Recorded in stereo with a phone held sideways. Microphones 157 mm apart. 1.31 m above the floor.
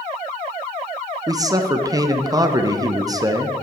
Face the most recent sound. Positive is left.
turn(degrees=-25)  # may be behind; listen again after turning